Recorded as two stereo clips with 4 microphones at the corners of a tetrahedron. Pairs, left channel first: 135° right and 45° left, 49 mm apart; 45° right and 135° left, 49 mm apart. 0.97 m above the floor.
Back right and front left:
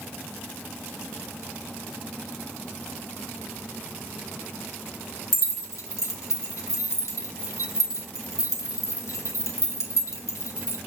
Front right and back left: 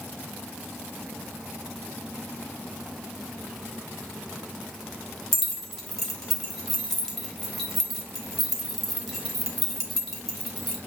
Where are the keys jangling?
130° right, 1.8 m.